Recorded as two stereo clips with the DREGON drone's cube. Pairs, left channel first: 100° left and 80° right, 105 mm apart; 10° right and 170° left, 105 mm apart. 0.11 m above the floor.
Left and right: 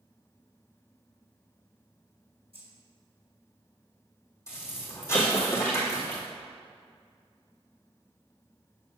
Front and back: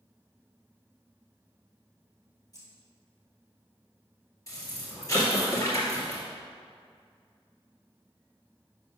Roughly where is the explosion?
Ahead left.